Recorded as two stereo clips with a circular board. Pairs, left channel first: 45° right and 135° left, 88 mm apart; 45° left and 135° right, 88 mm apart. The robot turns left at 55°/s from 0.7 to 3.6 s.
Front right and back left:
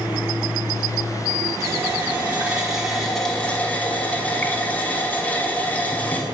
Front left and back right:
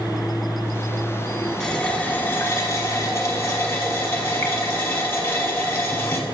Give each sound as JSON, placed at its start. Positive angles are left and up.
{"t": 1.6, "sound": "a running tap", "azimuth_deg": 120, "distance_m": 1.1}